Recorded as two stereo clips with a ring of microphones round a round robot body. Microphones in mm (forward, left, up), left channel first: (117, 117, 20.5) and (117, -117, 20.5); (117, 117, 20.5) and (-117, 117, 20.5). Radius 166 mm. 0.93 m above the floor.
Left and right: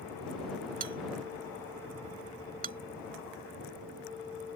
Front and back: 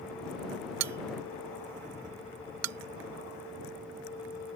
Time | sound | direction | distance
0.8 | a bell | 155° right | ?